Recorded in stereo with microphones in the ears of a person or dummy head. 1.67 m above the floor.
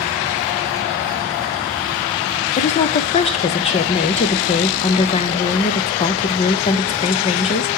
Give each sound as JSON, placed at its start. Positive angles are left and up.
{"t": 2.6, "sound": "a woman speaking", "side_deg": 30, "distance_m": 0.5}